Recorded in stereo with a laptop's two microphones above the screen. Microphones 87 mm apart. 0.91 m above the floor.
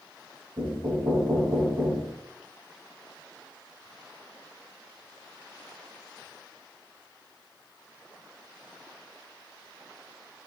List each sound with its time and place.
0.6 s knocking: 65° right (ahead or behind), 3 m